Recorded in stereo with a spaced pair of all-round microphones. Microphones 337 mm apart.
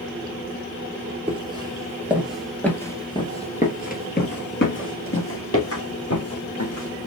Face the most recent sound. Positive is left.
turn(degrees=50)  # may be behind; listen again after turning